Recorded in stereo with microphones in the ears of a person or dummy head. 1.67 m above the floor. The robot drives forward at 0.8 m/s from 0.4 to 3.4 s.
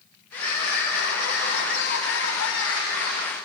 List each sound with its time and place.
0.3 s crying: 60° left (ahead or behind), 5.5 m; by 3.4 s 80° left, 4.5 m